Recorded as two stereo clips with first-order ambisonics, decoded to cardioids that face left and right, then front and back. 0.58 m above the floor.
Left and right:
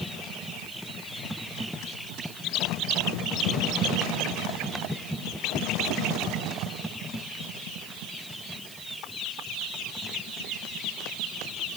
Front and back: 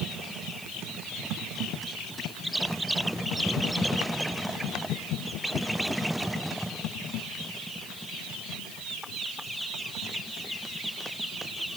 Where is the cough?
I don't hear a cough.